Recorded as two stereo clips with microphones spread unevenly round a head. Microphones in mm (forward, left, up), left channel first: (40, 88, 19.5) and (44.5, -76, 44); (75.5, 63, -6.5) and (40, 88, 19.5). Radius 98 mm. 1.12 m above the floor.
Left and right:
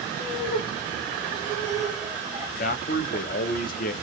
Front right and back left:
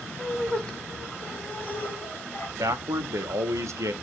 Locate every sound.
0.2 s laughter: 45° left, 1.1 m; by 2.5 s 10° right, 1.5 m
2.6 s a man speaking: 135° left, 0.5 m